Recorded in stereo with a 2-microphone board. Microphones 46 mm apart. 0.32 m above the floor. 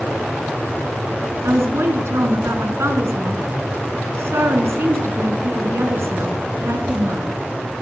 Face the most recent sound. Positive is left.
turn(degrees=-70)  # may be behind; listen again after turning